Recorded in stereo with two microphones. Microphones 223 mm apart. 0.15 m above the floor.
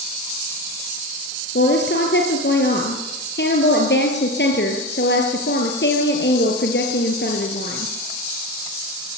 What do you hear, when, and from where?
1.6 s a woman speaking: 50° left (ahead or behind), 3.5 m